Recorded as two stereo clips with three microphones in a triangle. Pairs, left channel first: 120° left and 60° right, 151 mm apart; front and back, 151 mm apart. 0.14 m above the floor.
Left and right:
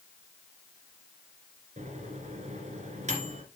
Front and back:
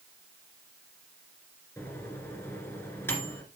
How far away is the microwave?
About 2.0 m.